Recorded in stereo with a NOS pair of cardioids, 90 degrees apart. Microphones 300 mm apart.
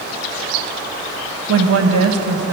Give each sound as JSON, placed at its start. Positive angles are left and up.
{"t": 1.5, "sound": "a woman speaking", "azimuth_deg": -50, "distance_m": 1.2}